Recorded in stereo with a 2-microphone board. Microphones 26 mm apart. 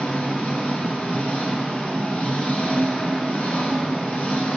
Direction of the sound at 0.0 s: 65° left (ahead or behind).